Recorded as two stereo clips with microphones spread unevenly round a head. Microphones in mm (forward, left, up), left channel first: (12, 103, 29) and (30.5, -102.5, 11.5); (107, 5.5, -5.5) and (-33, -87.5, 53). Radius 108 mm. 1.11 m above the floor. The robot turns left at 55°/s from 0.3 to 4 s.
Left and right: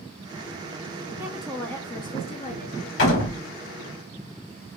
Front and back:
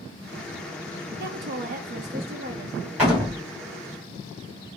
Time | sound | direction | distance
1.2 | a woman speaking | 155° right | 0.8 m
3.0 | a door slam | 130° left | 2 m